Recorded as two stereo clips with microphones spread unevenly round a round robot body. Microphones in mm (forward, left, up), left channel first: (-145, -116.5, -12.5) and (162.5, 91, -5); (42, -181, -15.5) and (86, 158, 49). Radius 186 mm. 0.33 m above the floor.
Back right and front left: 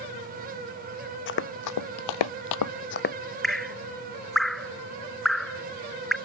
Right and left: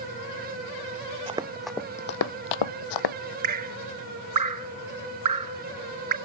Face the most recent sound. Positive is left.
turn(degrees=125)